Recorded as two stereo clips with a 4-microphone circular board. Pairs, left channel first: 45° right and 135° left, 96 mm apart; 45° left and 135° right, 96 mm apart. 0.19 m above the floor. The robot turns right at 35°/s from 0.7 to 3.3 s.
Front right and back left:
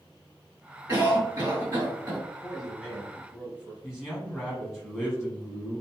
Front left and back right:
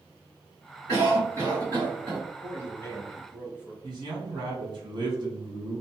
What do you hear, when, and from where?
0.9 s a cough: 75° left, 2.0 m; by 2.2 s 120° left, 2.0 m
2.4 s a man speaking: 45° left, 1.1 m; by 3.7 s 75° left, 1.1 m
3.8 s a man speaking: 145° right, 1.5 m